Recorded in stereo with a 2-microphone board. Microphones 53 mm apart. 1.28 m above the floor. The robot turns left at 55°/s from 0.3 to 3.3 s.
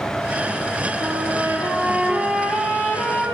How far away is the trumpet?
About 9.5 m.